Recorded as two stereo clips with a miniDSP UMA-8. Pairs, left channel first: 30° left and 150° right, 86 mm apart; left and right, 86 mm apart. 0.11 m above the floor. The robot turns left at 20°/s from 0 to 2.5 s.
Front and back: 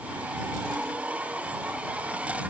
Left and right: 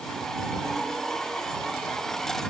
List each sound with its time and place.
Only background noise.